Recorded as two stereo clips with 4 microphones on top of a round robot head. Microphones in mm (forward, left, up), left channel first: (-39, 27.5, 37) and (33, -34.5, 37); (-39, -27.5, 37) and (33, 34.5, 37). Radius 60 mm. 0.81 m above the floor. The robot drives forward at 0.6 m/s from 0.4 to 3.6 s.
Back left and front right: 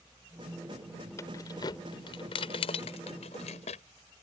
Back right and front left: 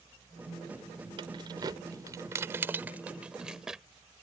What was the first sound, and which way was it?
Keys jangling, 80° left.